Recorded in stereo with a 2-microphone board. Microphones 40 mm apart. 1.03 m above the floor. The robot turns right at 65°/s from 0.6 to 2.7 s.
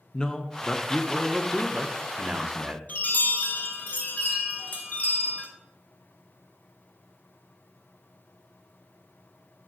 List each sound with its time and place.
0.1 s a man speaking: 135° left, 0.6 m; by 2.8 s 85° right, 0.6 m
2.9 s a chime: 45° left (ahead or behind), 1.2 m